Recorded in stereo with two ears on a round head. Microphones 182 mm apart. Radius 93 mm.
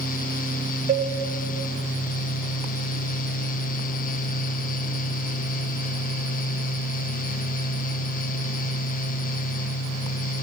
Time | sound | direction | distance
0.9 | a cowbell | 25° right (ahead or behind) | 0.6 m